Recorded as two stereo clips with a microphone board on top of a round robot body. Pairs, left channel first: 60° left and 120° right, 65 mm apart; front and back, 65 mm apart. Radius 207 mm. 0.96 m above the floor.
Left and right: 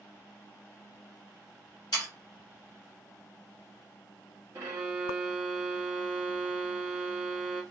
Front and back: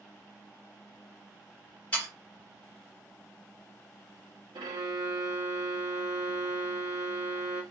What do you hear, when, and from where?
1.9 s sawing: 65° left, 0.8 m
4.5 s a violin: 175° right, 0.7 m